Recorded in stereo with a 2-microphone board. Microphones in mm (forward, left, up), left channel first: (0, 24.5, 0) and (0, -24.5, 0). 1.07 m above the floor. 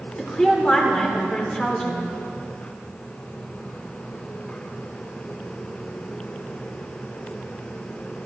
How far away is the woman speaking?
About 4 m.